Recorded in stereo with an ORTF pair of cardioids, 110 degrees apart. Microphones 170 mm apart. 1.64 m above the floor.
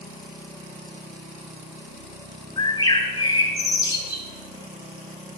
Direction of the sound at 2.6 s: 30° left.